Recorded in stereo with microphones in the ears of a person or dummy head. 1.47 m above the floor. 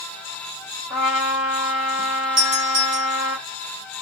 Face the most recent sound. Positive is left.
turn(degrees=-25)  # may be behind; listen again after turning